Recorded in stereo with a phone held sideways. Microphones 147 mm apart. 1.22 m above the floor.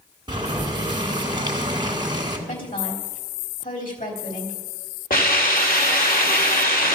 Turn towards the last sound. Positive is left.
turn(degrees=75)  # may be behind; listen again after turning